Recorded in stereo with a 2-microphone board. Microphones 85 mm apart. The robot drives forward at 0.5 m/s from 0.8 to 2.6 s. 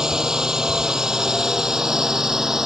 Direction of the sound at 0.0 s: 5° right (ahead or behind).